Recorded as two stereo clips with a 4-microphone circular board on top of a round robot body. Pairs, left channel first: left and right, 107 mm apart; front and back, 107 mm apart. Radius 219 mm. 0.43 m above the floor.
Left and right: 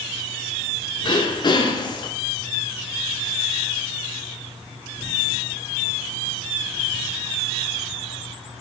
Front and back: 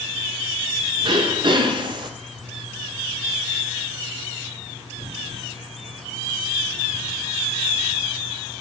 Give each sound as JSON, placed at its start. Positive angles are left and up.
{"t": 1.0, "sound": "throat clearing", "azimuth_deg": 135, "distance_m": 0.7}